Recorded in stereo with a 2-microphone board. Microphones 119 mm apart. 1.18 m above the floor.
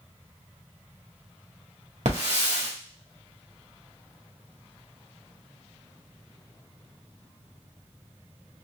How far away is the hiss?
About 1.8 m.